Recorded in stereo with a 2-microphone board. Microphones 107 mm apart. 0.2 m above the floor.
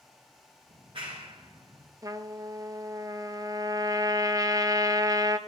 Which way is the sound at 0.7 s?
55° right (ahead or behind).